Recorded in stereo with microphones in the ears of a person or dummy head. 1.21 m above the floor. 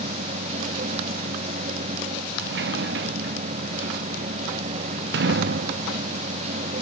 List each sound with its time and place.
0.0 s a machine running: 40° right (ahead or behind)
2.4 s a sliding door: 50° right (ahead or behind)